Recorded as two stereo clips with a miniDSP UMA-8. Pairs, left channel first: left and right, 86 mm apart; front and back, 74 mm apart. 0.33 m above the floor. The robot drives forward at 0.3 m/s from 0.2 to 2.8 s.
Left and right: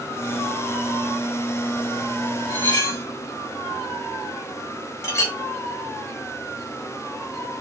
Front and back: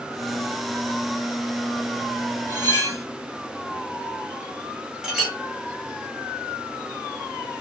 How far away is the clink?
About 0.7 m.